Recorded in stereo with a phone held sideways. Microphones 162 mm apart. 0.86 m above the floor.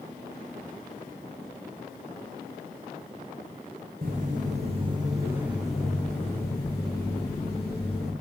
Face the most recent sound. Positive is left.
turn(degrees=35)  # may be behind; listen again after turning